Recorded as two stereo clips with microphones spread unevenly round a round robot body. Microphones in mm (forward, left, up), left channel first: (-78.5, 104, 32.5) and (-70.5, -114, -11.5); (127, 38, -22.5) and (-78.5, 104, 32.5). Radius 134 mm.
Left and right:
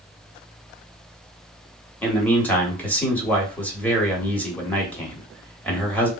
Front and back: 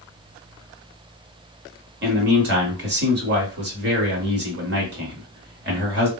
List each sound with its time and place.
2.0 s a man speaking: 175° right, 1.3 m